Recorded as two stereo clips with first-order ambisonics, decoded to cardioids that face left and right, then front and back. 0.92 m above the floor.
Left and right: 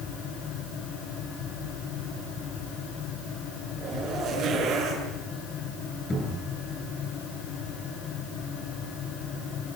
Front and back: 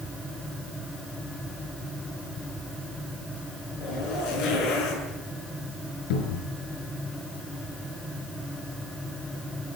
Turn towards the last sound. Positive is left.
turn(degrees=10)